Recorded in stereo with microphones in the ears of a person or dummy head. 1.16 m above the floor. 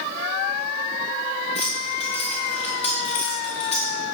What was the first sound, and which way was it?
Keys jangling, 35° left (ahead or behind).